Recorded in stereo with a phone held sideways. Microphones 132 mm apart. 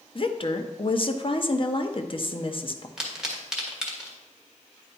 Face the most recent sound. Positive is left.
turn(degrees=-5)  # may be behind; listen again after turning